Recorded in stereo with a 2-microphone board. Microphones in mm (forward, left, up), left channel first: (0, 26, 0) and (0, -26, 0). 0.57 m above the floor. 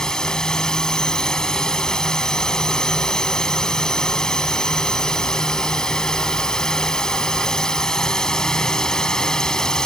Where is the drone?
10° left (ahead or behind).